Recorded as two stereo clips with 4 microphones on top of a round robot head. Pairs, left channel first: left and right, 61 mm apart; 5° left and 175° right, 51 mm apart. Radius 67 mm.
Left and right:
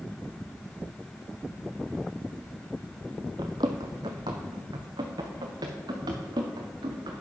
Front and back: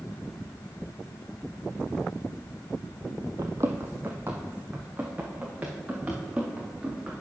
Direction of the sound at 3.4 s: 130° right.